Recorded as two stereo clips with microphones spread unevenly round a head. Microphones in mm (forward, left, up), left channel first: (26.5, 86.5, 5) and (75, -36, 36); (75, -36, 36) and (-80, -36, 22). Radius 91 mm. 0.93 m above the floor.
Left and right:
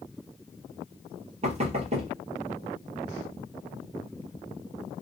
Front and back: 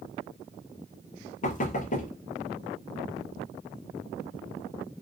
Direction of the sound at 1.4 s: 30° right.